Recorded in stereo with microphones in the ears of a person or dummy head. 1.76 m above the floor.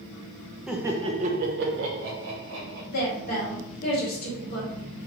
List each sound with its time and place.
0.7 s laughter: 5° right (ahead or behind), 0.6 m; by 2.8 s 80° right, 1.2 m
2.9 s a woman speaking: 50° left (ahead or behind), 1.0 m